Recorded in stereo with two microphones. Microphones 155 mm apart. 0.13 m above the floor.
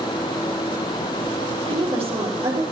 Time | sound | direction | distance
1.7 | a woman speaking | 35° right (ahead or behind) | 3.5 m